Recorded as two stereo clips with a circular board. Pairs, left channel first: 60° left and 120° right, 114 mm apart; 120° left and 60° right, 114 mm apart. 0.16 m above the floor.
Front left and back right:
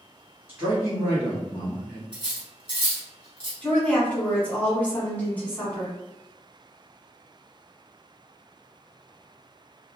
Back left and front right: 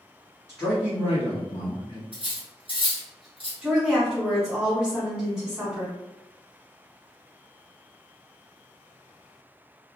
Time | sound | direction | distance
0.5 | a man speaking | 175° right | 1.3 m
2.1 | cutlery clinking | 85° right | 1.5 m
3.6 | a woman speaking | 10° left | 1.2 m